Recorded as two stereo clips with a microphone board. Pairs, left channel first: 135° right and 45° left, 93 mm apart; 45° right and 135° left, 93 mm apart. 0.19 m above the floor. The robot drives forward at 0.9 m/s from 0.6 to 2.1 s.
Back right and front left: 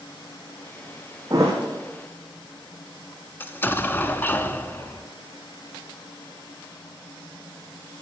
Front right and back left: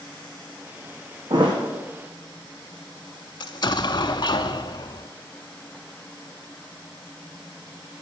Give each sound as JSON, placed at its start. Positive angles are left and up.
{"t": 1.3, "sound": "a thud", "azimuth_deg": 100, "distance_m": 2.5}
{"t": 3.4, "sound": "an explosion", "azimuth_deg": -70, "distance_m": 0.5}